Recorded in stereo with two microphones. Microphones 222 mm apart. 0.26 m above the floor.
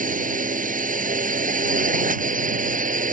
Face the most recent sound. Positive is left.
turn(degrees=-35)  # may be behind; listen again after turning